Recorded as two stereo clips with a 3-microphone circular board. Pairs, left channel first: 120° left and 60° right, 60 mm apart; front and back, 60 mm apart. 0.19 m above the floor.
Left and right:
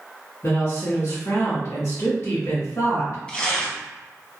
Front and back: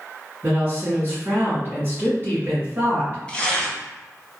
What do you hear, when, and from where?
0.4 s a woman speaking: 135° left, 1.6 m
3.3 s tearing paper: 60° left, 0.7 m